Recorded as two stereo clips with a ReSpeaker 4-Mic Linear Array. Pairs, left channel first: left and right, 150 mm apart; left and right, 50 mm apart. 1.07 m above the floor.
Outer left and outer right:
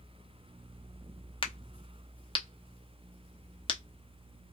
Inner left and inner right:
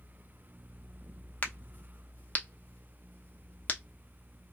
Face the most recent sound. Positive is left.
turn(degrees=40)  # may be behind; listen again after turning